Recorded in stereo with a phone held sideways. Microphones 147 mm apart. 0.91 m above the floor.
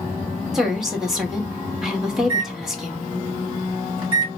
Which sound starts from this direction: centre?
A woman speaking, at 0.5 s.